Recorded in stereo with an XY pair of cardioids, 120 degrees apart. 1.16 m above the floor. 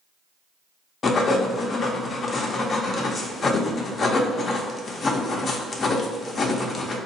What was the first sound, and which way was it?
Writing, 40° left.